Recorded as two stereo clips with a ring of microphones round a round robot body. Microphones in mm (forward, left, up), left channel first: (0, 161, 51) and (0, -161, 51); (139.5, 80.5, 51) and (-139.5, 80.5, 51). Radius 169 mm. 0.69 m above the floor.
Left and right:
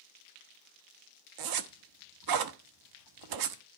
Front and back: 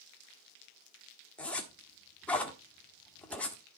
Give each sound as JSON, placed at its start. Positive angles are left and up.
{"t": 1.4, "sound": "a zipper", "azimuth_deg": -85, "distance_m": 1.3}